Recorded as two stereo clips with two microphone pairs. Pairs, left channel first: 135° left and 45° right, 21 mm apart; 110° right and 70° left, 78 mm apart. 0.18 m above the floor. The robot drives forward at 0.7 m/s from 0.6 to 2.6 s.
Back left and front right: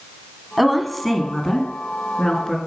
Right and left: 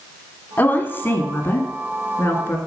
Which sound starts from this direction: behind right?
A woman speaking, at 0.6 s.